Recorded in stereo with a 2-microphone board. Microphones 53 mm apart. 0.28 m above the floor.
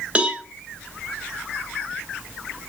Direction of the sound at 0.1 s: 25° right (ahead or behind).